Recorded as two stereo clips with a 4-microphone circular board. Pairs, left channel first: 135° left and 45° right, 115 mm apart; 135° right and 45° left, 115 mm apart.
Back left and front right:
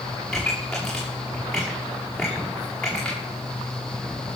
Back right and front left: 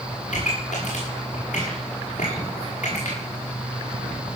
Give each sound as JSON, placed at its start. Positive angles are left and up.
{"t": 0.3, "sound": "a pop", "azimuth_deg": -140, "distance_m": 8.0}